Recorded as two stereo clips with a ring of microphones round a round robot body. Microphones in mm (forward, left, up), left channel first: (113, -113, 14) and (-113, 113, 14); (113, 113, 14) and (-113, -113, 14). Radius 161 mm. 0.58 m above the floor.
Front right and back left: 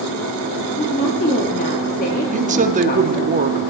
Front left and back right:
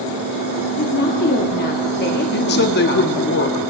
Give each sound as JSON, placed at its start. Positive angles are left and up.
{"t": 0.8, "sound": "a woman speaking", "azimuth_deg": 5, "distance_m": 1.0}
{"t": 2.3, "sound": "a woman speaking", "azimuth_deg": 80, "distance_m": 0.8}